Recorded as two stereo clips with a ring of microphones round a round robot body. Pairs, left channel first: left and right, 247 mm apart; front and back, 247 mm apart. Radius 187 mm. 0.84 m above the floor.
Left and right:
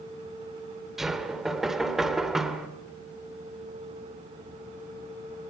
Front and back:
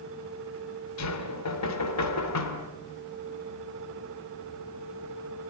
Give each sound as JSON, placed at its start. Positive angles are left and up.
{"t": 1.0, "sound": "knocking", "azimuth_deg": 0, "distance_m": 2.0}